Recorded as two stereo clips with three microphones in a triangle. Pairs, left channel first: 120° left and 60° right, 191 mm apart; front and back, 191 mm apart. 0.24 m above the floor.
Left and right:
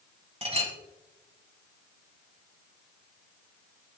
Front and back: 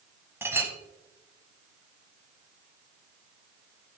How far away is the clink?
About 1.2 m.